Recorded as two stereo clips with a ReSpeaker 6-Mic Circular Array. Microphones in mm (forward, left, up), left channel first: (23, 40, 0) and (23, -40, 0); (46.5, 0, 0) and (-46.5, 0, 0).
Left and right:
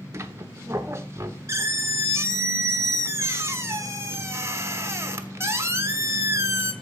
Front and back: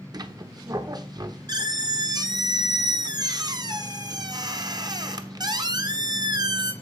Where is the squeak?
140° right, 1.0 m.